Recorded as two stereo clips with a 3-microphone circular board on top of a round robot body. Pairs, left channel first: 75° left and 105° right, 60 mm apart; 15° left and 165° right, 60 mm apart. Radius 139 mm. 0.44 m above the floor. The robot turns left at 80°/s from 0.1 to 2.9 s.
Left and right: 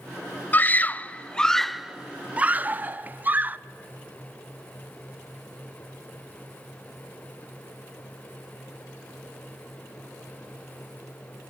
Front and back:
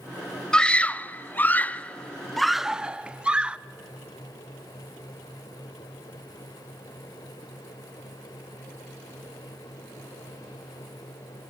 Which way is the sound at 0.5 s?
80° left.